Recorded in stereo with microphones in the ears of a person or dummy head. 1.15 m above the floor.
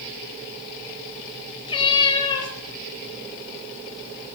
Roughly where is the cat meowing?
Left.